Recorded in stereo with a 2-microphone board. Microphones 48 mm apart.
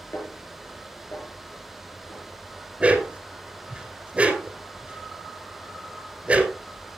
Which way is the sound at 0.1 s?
75° left (ahead or behind).